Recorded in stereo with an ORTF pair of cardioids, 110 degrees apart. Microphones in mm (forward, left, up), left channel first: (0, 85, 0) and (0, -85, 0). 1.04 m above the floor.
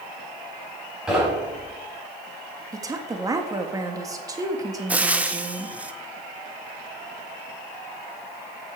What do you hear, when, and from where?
1.1 s knocking: 5° right, 5 m
2.7 s a woman speaking: 20° right, 1.7 m
4.9 s frying: 10° right, 0.9 m